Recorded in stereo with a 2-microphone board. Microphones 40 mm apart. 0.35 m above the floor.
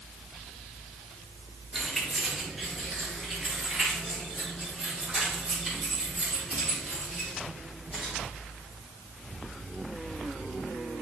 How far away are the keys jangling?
About 3.5 m.